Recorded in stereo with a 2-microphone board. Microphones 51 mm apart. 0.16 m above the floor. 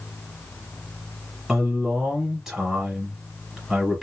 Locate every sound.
1.5 s a man speaking: 10° right (ahead or behind), 2 m